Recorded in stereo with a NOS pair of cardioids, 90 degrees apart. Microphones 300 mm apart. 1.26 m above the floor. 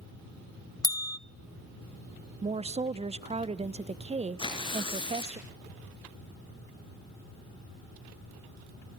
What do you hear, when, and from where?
0.8 s a bell: 10° left, 0.7 m
2.4 s a woman speaking: 20° right, 0.9 m
4.4 s tearing paper: 15° left, 4.5 m